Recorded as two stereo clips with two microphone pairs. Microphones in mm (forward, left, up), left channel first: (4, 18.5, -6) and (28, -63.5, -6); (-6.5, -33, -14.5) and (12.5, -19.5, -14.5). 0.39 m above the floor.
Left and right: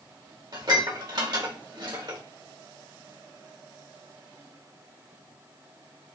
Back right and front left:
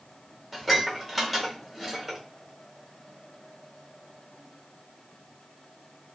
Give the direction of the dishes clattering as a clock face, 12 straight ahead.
2 o'clock.